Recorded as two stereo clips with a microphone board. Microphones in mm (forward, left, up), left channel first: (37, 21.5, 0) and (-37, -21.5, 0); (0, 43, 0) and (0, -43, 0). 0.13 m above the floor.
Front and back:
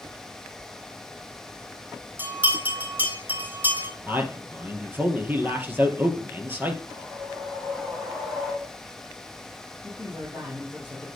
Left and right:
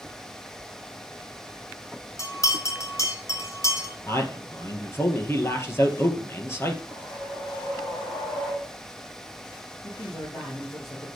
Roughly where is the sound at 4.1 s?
Behind left.